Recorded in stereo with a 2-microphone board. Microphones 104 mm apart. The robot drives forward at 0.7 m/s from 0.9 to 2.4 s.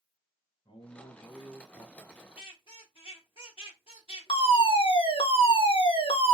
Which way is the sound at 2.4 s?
60° left (ahead or behind).